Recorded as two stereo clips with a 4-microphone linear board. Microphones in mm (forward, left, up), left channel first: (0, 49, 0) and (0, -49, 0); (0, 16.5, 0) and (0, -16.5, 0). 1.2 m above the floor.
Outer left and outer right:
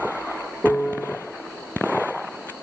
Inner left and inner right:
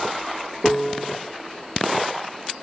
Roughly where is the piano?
Centre.